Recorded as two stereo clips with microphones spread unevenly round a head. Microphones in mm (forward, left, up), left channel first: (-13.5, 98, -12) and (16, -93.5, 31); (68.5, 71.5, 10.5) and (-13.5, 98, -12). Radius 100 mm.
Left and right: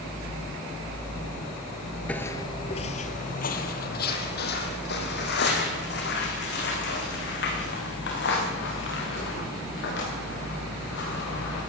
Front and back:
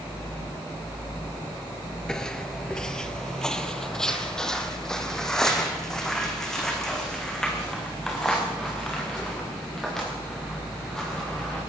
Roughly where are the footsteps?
Ahead.